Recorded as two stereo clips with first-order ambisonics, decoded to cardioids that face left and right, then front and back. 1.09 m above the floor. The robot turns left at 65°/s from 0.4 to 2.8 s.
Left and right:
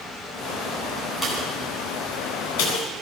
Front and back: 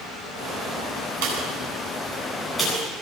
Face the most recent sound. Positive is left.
turn(degrees=70)